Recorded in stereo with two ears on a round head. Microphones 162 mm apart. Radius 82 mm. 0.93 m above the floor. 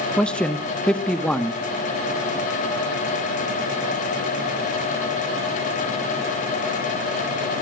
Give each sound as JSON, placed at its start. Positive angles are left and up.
{"t": 0.2, "sound": "a man speaking", "side_deg": 5, "distance_m": 0.9}